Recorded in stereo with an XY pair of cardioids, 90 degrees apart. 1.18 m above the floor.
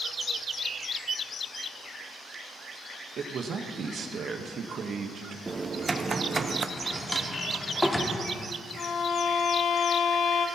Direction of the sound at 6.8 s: 5° left.